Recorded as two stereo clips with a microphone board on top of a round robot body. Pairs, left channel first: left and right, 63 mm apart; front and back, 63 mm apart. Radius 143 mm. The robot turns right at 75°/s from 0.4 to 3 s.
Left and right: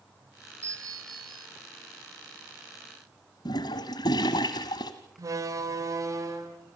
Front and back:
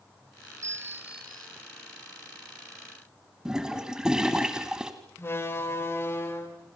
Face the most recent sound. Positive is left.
turn(degrees=-55)